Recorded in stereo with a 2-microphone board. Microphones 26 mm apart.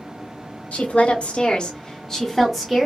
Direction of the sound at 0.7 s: 70° left (ahead or behind).